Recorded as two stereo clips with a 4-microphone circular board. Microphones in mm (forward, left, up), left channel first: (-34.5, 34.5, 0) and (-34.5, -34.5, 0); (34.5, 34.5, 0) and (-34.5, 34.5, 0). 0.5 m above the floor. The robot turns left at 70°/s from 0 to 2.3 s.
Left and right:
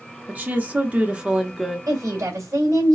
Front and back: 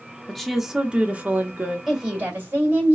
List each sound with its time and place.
0.3 s a woman speaking: 75° right, 0.7 m; by 1.8 s straight behind, 0.7 m
1.9 s a woman speaking: 95° right, 1.9 m; by 3.0 s 125° right, 1.9 m